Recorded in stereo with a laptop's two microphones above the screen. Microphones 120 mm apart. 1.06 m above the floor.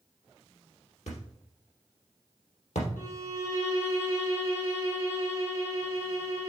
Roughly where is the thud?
Left.